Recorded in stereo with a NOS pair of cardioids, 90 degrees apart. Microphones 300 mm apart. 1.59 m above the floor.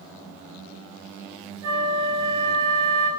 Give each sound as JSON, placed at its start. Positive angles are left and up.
{"t": 1.6, "sound": "a flute", "azimuth_deg": -45, "distance_m": 2.0}